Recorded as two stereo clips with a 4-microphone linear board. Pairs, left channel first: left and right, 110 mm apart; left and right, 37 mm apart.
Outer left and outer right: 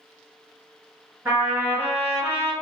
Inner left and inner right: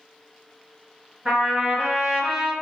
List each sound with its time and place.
1.2 s a trumpet: 20° right (ahead or behind), 1.5 m